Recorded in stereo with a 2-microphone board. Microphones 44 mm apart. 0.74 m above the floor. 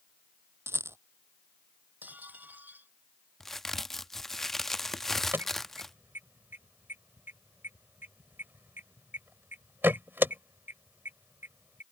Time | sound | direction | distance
0.7 | a rattle | 70° right (ahead or behind) | ?
2.0 | dishes clattering | 40° right (ahead or behind) | ?
3.4 | a crack | 5° left (ahead or behind) | ?
5.3 | an alarm | 50° right (ahead or behind) | ?